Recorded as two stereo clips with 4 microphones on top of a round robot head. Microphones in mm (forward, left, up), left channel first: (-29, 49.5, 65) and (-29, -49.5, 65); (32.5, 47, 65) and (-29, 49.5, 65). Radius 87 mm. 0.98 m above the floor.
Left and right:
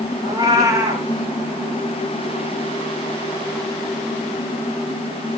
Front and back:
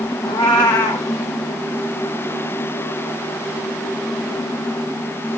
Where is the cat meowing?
25° right, 1.2 m.